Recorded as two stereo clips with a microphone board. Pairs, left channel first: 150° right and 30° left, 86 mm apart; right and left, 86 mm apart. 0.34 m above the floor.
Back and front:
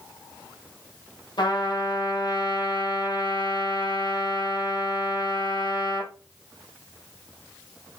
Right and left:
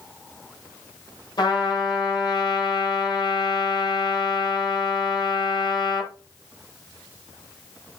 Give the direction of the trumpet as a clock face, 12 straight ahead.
4 o'clock.